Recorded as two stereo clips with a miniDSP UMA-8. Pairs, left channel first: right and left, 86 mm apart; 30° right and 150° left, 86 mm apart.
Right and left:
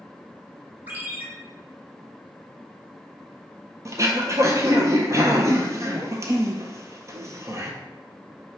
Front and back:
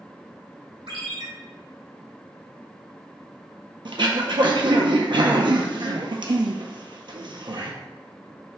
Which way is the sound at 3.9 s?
140° left.